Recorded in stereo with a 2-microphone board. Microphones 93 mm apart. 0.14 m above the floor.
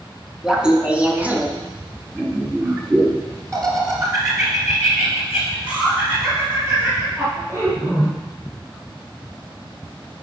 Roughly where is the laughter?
Centre.